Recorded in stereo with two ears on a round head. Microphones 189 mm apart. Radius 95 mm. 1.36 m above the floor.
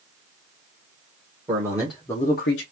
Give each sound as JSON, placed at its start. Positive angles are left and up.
{"t": 1.5, "sound": "a man speaking", "side_deg": -20, "distance_m": 1.5}